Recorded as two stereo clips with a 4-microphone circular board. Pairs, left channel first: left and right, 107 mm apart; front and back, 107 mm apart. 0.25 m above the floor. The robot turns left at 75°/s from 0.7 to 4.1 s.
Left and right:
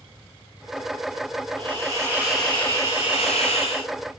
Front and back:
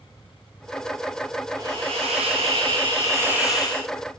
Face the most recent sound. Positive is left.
turn(degrees=45)